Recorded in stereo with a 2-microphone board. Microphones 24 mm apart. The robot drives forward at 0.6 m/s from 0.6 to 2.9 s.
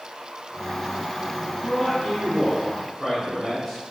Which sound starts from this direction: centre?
A man speaking, at 1.6 s.